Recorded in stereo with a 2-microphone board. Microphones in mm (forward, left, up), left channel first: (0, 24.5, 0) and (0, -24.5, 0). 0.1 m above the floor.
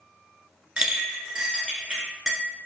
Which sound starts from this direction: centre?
A clink, at 0.8 s.